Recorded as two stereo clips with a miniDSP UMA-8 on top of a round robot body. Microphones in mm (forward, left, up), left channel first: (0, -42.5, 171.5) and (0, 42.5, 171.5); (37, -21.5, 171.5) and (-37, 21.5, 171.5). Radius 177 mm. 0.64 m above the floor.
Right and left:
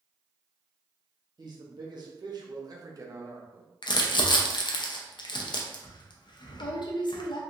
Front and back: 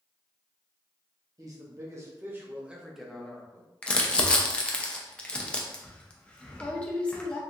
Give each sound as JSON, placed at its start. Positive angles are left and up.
{"t": 1.4, "sound": "a man speaking", "azimuth_deg": 110, "distance_m": 1.3}
{"t": 3.8, "sound": "crumpling", "azimuth_deg": -105, "distance_m": 0.6}